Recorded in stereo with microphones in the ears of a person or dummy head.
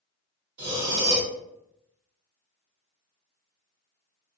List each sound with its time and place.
0.6 s breathing: 30° right (ahead or behind), 1.4 m